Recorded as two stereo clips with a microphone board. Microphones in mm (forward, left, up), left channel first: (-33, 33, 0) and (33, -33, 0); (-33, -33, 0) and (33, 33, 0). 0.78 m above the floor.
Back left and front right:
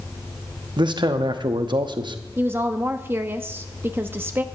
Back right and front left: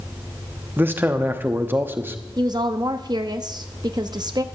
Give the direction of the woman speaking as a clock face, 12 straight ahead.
11 o'clock.